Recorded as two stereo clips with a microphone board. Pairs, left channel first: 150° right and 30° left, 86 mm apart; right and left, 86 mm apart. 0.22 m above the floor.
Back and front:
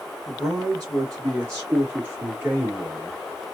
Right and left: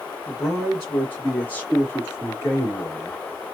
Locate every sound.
0.3 s a man speaking: straight ahead, 2.5 m; by 3.1 s 45° right, 3 m